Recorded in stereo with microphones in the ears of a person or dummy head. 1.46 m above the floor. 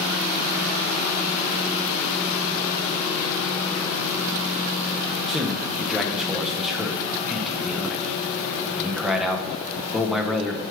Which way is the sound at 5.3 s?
Centre (ahead or behind).